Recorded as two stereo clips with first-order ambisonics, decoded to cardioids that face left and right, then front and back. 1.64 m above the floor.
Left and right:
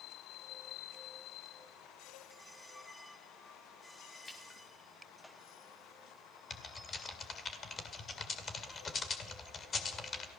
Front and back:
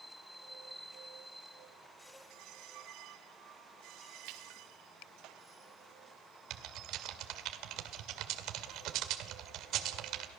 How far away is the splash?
About 2 m.